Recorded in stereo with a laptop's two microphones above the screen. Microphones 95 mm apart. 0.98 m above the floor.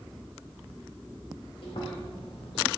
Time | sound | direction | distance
1.6 | chewing | 80° left | 2.5 m